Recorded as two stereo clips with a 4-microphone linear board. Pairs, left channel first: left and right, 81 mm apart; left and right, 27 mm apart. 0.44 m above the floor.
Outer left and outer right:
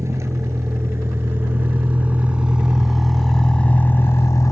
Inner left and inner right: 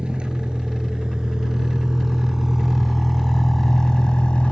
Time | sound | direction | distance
0.0 | a vehicle | 35° right (ahead or behind) | ?